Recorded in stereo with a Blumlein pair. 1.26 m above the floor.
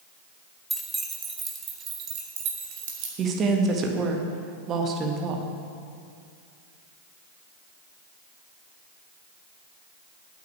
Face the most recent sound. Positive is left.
turn(degrees=-30)